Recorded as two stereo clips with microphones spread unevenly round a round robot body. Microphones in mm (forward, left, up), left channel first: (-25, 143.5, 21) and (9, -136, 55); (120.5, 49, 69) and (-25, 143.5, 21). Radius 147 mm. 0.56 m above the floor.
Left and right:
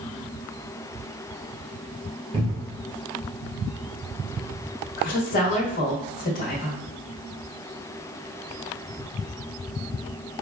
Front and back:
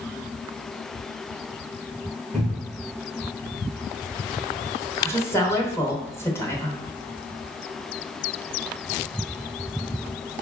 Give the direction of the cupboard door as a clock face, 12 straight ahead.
5 o'clock.